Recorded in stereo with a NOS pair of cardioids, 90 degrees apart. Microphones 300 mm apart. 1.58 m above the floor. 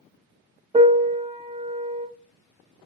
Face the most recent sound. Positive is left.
turn(degrees=-20)